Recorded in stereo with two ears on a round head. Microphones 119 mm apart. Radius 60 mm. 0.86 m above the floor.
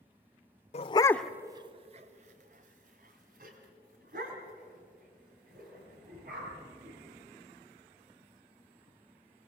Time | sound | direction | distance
0.7 | a dog barking | 50° left (ahead or behind) | 0.7 m